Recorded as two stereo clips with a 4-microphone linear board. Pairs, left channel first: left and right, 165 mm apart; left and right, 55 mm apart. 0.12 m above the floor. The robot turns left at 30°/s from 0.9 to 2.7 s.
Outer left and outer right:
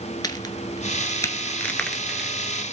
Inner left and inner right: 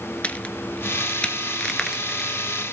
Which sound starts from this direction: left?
A crack, at 0.2 s.